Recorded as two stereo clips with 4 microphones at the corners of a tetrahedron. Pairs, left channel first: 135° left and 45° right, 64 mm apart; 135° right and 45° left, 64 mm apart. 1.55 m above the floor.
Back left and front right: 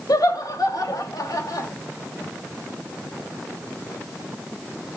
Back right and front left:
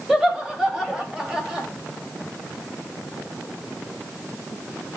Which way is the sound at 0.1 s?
125° left.